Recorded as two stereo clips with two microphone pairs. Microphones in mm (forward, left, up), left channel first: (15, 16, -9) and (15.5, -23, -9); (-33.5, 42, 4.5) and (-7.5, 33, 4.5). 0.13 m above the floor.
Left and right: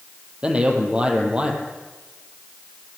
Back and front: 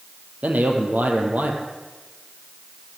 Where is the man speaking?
25° right, 4.5 m.